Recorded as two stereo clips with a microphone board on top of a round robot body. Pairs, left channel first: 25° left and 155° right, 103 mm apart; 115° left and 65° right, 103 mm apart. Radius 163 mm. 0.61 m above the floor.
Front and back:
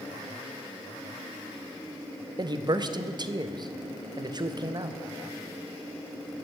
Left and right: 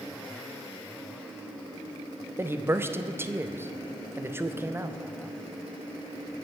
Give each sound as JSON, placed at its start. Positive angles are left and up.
{"t": 2.4, "sound": "a man speaking", "azimuth_deg": -130, "distance_m": 1.0}